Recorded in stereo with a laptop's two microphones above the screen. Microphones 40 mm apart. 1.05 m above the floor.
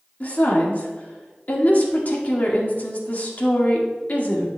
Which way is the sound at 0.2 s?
45° left (ahead or behind).